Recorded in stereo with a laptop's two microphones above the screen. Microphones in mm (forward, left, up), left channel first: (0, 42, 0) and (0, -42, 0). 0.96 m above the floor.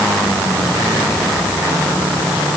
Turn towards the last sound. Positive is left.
No sound to turn to.